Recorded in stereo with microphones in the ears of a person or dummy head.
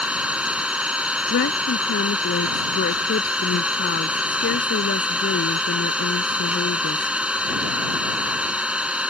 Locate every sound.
0.0 s an engine running: 10° right (ahead or behind)
1.3 s a woman speaking: 55° left (ahead or behind)